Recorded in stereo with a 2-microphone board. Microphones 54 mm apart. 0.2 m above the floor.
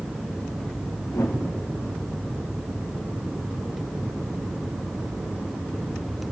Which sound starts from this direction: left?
A whoosh, at 1.1 s.